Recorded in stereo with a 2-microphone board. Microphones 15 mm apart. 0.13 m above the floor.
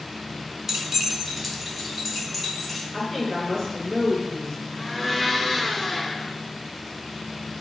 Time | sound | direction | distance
0.7 | keys jangling | 20° right (ahead or behind) | 0.8 m
2.9 | a woman speaking | 40° left (ahead or behind) | 1.5 m
4.8 | a blender | 30° left (ahead or behind) | 1.6 m